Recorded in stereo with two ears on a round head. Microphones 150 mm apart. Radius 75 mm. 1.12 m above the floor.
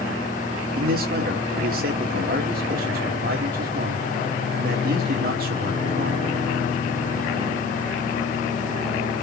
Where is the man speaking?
55° right (ahead or behind), 3 m.